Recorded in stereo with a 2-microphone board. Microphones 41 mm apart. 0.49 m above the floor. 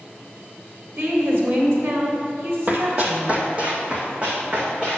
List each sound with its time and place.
1.0 s a woman speaking: 60° right (ahead or behind), 1.8 m
2.7 s running footsteps: 45° right (ahead or behind), 0.9 m; by 5.0 s 25° right (ahead or behind), 2.5 m